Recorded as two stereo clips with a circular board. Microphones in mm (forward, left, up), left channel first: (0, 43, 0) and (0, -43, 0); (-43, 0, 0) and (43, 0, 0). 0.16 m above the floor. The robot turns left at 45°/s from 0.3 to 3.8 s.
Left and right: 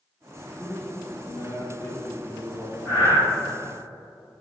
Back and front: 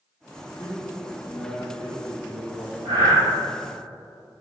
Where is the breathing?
20° right, 2.5 m; by 3.2 s 35° right, 2.5 m.